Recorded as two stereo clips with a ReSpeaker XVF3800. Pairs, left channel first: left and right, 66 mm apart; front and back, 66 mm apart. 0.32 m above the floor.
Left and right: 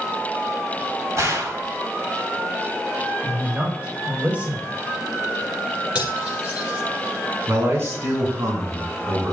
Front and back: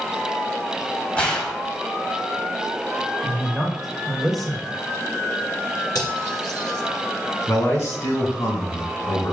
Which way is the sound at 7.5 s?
40° right.